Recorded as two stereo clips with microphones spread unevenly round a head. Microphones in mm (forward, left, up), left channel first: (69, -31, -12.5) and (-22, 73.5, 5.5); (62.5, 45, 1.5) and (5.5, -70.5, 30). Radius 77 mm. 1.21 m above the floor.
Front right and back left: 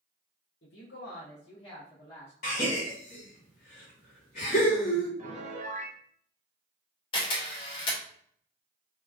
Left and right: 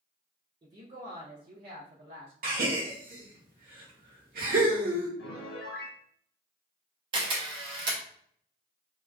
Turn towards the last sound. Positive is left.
turn(degrees=-105)